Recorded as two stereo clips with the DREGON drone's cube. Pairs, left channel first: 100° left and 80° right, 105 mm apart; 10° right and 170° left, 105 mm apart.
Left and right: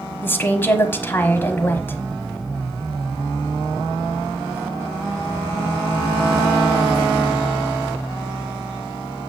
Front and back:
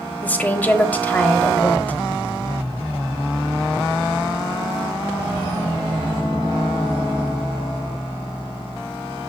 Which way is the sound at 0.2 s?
50° left.